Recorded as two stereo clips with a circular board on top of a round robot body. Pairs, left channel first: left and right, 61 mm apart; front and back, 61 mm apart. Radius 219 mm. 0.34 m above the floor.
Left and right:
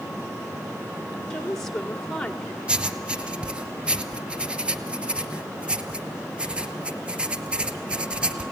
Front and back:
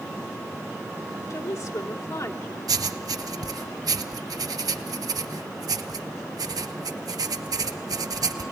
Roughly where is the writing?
Behind.